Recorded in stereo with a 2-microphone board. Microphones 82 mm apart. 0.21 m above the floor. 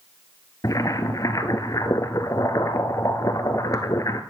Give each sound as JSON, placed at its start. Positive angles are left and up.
{"t": 0.6, "sound": "boiling", "side_deg": 45, "distance_m": 1.1}